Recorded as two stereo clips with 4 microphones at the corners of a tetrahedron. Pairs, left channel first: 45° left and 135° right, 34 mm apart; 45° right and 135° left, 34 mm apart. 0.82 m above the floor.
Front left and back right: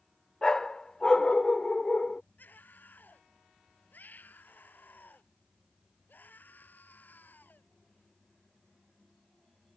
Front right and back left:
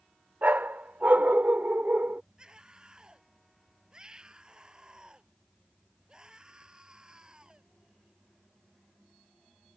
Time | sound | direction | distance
0.4 | a dog barking | 110° left | ?
2.4 | a scream | 70° left | ?